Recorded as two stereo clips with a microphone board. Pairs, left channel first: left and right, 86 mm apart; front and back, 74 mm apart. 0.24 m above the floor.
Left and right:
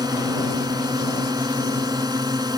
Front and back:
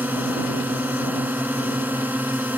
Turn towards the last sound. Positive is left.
turn(degrees=-115)